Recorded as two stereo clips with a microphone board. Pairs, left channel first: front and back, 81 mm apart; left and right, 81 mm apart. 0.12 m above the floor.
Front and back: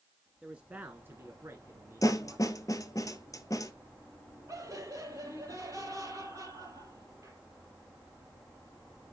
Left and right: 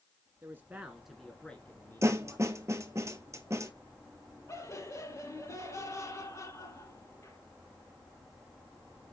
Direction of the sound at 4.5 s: 135° left.